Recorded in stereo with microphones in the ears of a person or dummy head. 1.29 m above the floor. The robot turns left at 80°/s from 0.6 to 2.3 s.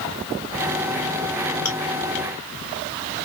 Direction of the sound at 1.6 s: 15° left (ahead or behind).